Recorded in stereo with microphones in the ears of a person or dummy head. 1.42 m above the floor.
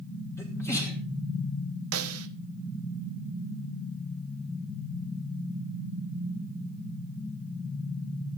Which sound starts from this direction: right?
A snare drum, at 1.9 s.